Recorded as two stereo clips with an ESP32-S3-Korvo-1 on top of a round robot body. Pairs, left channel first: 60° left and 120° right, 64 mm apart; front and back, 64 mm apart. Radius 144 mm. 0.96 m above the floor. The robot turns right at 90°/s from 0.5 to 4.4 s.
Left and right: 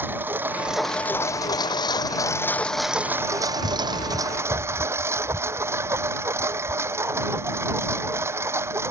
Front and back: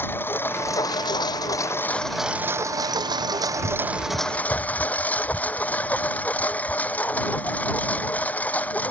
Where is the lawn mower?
60° right; by 8.9 s 65° right.